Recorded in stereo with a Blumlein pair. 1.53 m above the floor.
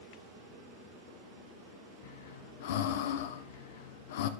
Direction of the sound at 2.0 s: 55° left.